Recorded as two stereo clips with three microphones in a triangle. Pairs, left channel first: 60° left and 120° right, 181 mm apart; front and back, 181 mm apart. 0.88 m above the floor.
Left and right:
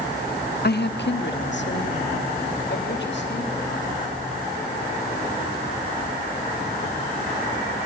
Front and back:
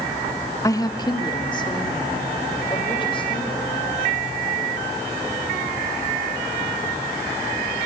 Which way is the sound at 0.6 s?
75° left.